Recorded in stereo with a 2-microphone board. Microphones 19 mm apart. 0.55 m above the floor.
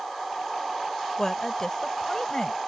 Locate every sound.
1.2 s a woman speaking: 25° left (ahead or behind); by 2.6 s 30° left (ahead or behind)